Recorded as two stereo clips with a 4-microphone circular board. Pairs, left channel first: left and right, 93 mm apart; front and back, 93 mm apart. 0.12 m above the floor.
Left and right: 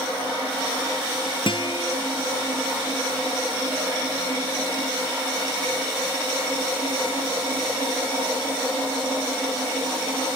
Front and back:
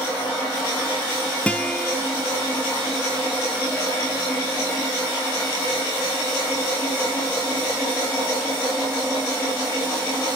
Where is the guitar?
75° left, 0.7 m.